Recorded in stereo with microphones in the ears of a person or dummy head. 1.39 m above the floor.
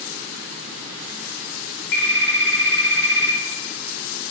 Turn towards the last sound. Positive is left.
turn(degrees=65)  # may be behind; listen again after turning